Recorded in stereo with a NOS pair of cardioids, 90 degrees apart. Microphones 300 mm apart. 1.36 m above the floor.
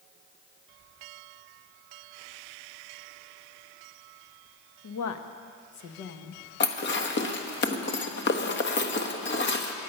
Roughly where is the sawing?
No sawing in this recording.